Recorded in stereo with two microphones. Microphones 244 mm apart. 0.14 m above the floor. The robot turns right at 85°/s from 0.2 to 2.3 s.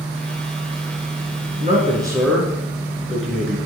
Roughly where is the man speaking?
Ahead right.